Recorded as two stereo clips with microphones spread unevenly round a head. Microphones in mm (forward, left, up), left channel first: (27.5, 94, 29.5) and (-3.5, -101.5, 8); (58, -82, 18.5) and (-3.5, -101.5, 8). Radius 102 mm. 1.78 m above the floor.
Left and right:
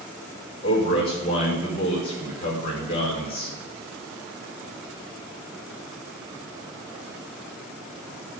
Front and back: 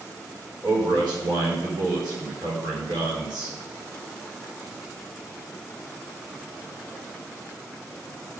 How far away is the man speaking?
About 5 m.